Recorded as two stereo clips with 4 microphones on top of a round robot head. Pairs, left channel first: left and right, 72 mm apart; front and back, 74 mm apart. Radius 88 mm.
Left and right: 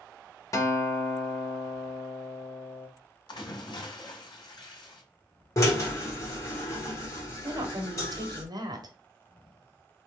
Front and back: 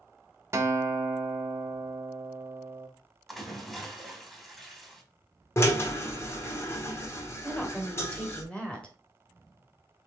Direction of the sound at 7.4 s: 80° right.